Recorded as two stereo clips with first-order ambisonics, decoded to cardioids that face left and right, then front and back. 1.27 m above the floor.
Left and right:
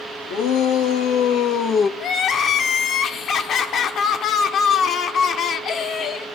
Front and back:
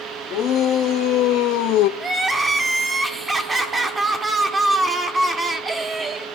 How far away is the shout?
About 2.0 m.